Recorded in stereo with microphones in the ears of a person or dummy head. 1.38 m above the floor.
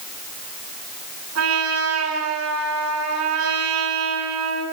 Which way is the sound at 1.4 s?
85° right.